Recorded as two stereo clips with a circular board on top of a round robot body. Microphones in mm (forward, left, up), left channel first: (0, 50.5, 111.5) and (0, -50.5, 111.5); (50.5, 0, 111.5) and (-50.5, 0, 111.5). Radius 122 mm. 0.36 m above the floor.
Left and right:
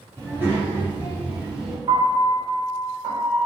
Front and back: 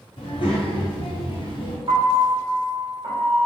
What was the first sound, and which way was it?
A child speaking, 25° right.